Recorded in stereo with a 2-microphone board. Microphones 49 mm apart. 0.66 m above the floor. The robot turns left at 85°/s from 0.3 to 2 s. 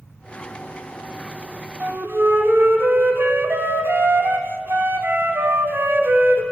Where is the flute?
40° right (ahead or behind), 1.0 m; by 6.4 s 55° right (ahead or behind), 1.0 m.